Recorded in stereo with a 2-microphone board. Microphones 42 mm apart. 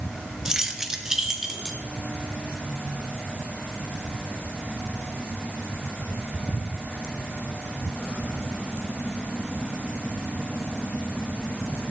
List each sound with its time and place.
0.5 s keys jangling: 15° right (ahead or behind), 1.2 m; by 1.8 s 10° right (ahead or behind), 2.5 m